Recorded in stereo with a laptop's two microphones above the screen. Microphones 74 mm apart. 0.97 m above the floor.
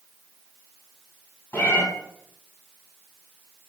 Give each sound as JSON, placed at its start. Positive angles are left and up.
{"t": 1.5, "sound": "a cat meowing", "side_deg": 35, "distance_m": 1.6}